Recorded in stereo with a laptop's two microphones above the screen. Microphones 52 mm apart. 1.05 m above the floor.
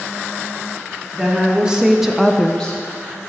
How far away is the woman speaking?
About 1.5 m.